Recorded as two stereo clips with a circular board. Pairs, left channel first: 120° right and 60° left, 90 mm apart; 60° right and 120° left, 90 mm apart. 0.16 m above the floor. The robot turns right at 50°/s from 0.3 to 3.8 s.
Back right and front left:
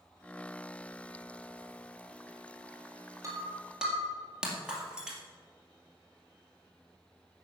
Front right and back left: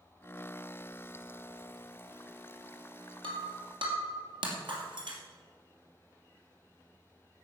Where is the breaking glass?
115° left, 2.5 m; by 5.2 s 140° left, 2.5 m.